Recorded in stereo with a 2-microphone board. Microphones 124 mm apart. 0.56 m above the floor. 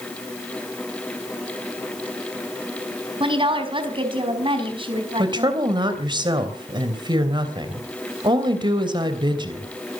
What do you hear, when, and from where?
3.2 s a woman speaking: 45° right (ahead or behind), 4 m
5.2 s a woman speaking: 40° right (ahead or behind), 3 m